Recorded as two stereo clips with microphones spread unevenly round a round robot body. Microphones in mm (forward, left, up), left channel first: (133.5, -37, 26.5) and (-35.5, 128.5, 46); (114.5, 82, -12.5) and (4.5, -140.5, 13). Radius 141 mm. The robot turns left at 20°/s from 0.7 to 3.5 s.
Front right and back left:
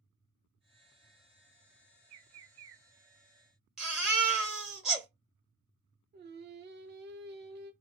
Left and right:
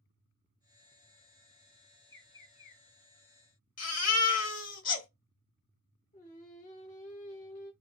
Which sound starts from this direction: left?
Singing, at 6.1 s.